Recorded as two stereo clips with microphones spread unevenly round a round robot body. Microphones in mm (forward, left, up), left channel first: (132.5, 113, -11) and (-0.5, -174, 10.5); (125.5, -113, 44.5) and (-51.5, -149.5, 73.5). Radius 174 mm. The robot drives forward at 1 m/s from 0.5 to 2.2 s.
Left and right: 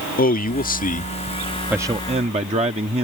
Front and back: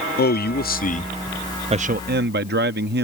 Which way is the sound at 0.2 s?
5° left.